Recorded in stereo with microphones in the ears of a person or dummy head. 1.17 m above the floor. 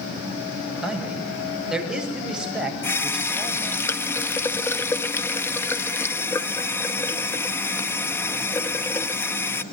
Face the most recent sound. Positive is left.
turn(degrees=15)  # may be behind; listen again after turning